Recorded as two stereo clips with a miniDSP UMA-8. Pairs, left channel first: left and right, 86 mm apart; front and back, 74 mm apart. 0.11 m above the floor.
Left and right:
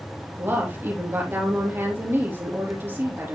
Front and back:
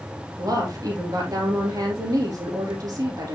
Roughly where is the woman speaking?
Behind right.